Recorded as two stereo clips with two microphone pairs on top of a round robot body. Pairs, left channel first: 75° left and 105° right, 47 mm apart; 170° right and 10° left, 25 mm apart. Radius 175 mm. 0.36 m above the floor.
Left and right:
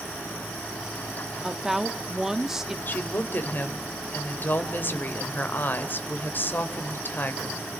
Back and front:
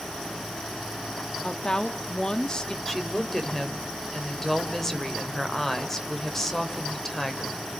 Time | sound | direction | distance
1.4 | a woman speaking | 175° left | 1.3 m
2.9 | a woman speaking | 115° left | 2.5 m